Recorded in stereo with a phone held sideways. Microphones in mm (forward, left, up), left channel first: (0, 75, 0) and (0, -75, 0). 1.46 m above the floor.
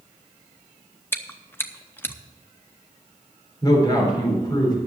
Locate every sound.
1.1 s chewing: 15° left (ahead or behind), 0.7 m
3.6 s a man speaking: 30° left (ahead or behind), 4 m